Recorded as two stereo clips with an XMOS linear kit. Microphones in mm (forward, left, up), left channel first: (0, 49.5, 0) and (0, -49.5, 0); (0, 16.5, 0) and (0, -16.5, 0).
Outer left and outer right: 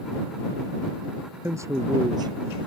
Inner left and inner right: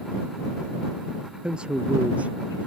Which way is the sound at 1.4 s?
25° right (ahead or behind).